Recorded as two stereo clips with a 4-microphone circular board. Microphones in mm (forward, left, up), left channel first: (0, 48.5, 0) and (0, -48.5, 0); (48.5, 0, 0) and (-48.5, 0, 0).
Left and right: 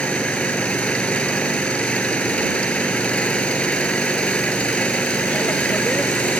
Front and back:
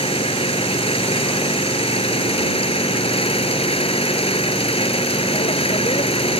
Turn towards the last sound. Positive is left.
turn(degrees=10)